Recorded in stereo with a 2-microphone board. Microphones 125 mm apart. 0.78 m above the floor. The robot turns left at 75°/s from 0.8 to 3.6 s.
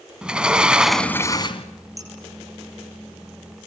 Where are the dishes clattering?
25° right (ahead or behind), 9.5 m; by 2.1 s 35° right (ahead or behind), 9.5 m.